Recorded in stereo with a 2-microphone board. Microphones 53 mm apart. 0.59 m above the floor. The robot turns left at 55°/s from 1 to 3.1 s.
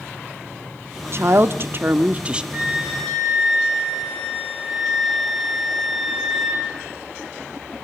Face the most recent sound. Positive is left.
turn(degrees=180)